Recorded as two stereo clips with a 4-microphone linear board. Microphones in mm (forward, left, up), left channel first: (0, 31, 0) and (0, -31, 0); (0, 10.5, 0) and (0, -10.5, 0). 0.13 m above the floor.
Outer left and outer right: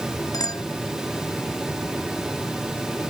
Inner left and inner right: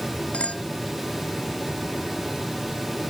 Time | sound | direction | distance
0.3 | a clink | 80° left | ?